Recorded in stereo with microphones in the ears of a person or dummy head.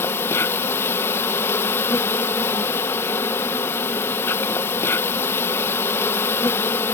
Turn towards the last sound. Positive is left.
turn(degrees=15)  # may be behind; listen again after turning